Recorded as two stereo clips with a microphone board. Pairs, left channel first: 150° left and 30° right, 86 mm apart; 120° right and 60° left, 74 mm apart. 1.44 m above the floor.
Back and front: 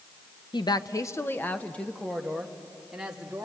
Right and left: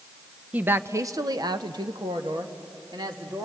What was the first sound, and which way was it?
A woman speaking, 130° left.